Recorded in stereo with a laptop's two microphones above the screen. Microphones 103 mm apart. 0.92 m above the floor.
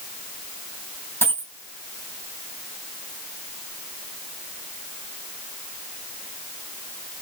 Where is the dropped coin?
20° left (ahead or behind), 2.5 m.